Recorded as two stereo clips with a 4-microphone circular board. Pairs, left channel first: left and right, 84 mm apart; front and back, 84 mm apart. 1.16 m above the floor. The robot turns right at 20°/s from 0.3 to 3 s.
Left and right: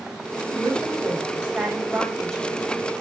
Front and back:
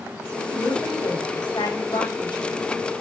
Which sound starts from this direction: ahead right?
A woman speaking, at 0.5 s.